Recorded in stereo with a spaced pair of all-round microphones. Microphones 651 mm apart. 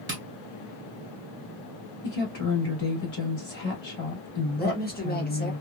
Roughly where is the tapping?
Centre.